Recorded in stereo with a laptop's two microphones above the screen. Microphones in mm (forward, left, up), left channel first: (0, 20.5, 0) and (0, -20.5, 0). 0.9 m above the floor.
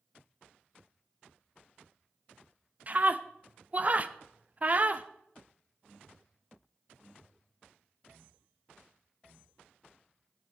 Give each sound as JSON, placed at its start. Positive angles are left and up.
{"t": 2.9, "sound": "a scream", "side_deg": -35, "distance_m": 0.8}